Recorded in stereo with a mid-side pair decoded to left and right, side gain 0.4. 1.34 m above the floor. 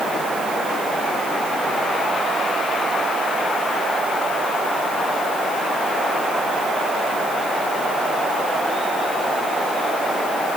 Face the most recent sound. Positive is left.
No sound to turn to.